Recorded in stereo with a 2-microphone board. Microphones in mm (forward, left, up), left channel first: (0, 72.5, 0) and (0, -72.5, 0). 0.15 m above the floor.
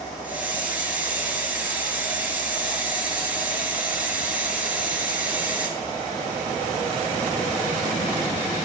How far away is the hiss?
About 1.3 m.